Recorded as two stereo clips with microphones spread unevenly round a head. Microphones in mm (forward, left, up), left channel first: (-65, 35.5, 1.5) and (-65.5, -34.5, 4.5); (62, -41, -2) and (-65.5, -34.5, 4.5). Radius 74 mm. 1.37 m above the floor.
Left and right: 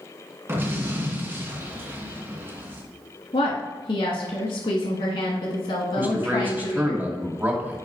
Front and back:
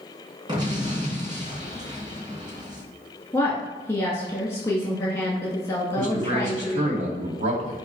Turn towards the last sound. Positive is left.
turn(degrees=-155)